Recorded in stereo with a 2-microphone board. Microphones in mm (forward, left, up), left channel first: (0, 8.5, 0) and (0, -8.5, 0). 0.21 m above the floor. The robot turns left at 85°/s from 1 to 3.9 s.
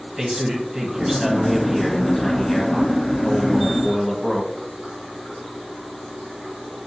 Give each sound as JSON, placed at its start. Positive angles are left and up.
{"t": 0.2, "sound": "a man speaking", "side_deg": -25, "distance_m": 1.5}